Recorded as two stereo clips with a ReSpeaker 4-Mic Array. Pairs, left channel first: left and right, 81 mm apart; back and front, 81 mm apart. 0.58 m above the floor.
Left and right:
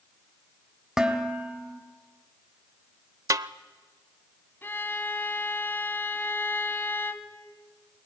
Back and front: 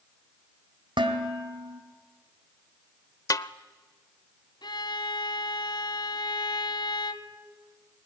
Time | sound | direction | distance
1.0 | dishes clattering | 5° right | 2 m
3.3 | a snare drum | 135° right | 0.6 m
4.6 | a violin | 155° left | 1.4 m